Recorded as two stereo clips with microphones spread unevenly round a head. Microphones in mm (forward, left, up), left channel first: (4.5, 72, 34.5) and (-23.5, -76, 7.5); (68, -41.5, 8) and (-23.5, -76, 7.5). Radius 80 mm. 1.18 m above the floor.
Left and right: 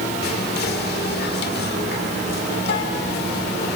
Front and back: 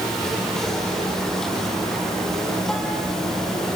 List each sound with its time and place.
0.2 s whispering: 110° left, 3.5 m